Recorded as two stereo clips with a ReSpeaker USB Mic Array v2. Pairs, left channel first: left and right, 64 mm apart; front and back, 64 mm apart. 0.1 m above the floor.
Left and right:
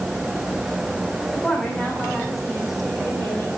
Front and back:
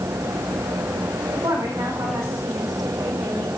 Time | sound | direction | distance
1.3 | a woman speaking | straight behind | 8 m